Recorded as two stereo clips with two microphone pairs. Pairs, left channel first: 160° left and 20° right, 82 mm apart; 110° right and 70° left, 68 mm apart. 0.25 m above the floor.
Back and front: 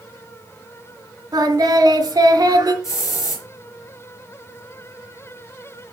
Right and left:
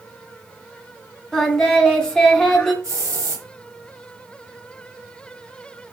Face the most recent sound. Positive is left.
turn(degrees=110)